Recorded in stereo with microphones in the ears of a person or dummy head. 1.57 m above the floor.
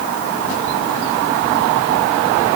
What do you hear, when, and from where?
Only background noise.